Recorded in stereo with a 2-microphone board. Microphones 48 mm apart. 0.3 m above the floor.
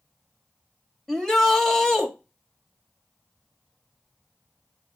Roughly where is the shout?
Centre.